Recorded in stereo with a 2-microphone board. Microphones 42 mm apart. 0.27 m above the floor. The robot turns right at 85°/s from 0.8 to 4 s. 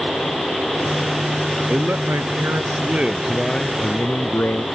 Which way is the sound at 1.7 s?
140° right.